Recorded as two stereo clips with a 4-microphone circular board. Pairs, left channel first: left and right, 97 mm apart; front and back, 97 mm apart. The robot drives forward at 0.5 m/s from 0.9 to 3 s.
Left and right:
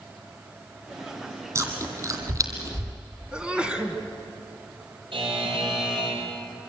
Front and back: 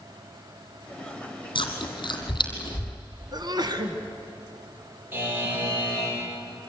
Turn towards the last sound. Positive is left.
turn(degrees=-115)